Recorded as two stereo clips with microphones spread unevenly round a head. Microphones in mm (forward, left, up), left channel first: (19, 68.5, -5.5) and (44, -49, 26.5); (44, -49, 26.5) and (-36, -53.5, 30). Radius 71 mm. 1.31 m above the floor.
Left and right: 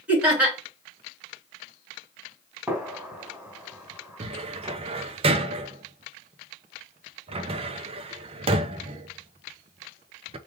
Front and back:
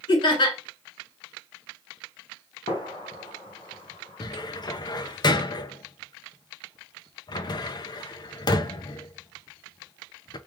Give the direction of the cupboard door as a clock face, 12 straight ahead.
1 o'clock.